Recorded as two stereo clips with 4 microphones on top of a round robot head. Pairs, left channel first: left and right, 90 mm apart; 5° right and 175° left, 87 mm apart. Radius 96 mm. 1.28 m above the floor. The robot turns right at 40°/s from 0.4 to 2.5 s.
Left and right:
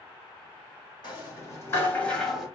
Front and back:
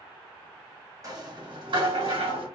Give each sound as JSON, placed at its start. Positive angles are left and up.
{"t": 1.0, "sound": "a rattle", "azimuth_deg": 125, "distance_m": 2.0}